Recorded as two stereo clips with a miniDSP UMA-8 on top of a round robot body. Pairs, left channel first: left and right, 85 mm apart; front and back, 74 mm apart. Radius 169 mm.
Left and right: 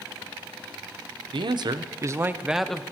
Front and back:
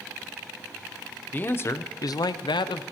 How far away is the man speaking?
About 0.8 m.